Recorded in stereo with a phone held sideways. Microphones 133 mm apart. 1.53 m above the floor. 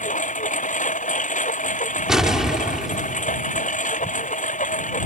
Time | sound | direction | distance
0.0 | a lawn mower | 70° left (ahead or behind) | ?
2.1 | an explosion | 5° right (ahead or behind) | ?